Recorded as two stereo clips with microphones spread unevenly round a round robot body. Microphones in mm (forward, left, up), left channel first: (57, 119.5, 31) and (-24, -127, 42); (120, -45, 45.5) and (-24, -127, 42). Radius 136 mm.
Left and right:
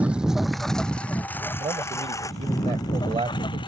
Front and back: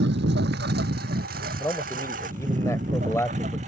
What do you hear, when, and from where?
0.0 s a lawn mower: 165° left; by 3.7 s 145° left
1.6 s a man speaking: 40° right